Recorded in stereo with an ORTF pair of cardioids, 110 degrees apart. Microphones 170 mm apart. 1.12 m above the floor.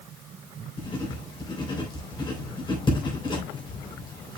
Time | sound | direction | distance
0.8 | writing | 30° left | 3 m